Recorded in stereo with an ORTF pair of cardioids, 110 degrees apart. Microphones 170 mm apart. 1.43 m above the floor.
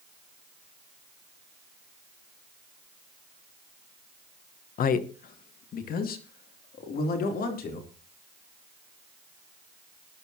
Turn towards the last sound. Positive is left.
turn(degrees=60)